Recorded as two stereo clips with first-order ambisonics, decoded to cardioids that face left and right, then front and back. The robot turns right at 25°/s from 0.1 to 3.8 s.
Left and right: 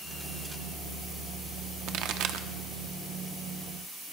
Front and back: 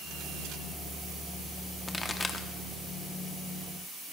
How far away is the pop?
About 0.8 m.